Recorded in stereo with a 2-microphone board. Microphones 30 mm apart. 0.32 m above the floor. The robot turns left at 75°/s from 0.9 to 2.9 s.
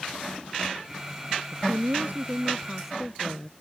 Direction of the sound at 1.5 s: 75° right.